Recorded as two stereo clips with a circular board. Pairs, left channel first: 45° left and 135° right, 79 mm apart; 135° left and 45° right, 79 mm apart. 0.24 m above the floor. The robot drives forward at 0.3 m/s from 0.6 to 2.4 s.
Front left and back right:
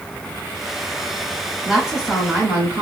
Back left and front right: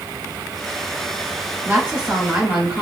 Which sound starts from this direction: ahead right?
A woman speaking, at 1.6 s.